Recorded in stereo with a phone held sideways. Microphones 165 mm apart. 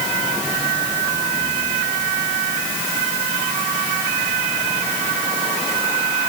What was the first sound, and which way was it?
Only background noise.